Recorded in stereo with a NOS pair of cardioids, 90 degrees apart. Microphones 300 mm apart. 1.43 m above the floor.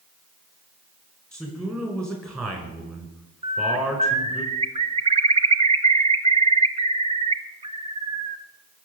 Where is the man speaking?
10° right, 5 m.